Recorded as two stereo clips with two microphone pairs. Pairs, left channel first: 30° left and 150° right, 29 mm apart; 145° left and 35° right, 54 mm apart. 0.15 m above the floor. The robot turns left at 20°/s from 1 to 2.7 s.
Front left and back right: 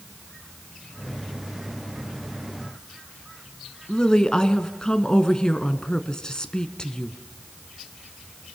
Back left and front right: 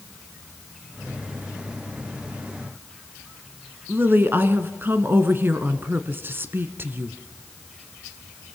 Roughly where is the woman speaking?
Ahead right.